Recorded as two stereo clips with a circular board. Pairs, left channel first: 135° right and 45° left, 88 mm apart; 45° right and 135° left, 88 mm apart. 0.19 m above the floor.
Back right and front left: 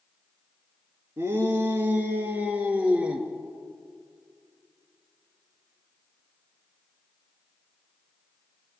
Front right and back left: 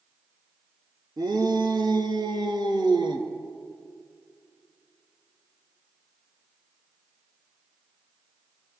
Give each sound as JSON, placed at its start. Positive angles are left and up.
{"t": 1.2, "sound": "a shout", "azimuth_deg": 100, "distance_m": 3.0}